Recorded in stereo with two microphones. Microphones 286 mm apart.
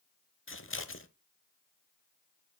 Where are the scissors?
45° left (ahead or behind), 0.8 m.